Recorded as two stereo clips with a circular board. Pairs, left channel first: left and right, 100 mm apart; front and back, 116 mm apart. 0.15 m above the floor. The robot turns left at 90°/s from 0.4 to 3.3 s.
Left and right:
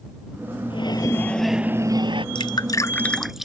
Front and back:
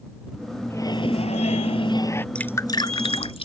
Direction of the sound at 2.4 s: 80° left.